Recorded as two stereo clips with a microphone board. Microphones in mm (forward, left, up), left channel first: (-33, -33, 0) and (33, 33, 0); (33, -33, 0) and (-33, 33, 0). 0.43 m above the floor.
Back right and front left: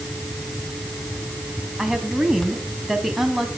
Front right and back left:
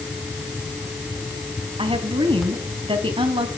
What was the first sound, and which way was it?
A woman speaking, 130° left.